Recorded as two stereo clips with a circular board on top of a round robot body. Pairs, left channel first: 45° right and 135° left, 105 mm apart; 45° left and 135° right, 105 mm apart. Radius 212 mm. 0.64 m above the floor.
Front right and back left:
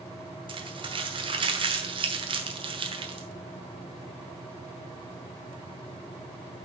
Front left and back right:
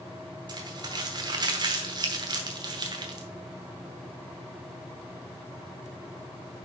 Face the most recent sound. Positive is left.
turn(degrees=175)